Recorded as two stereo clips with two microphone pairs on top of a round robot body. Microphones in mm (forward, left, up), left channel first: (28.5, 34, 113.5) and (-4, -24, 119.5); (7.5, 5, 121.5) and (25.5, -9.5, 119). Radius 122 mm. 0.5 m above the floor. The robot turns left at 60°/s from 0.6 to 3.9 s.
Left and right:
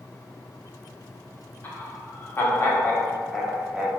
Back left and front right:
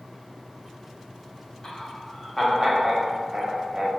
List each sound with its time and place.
1.6 s laughter: 90° left, 1.1 m; by 3.9 s 45° right, 1.1 m